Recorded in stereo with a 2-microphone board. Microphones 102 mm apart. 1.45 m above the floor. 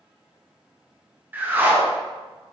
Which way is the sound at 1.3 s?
20° right (ahead or behind).